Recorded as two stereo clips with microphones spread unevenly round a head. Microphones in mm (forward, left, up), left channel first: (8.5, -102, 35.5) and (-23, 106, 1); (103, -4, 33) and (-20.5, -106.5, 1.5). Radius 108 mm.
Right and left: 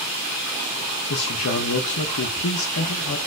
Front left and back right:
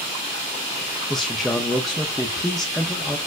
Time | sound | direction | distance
1.1 | a man speaking | 50° right | 0.5 m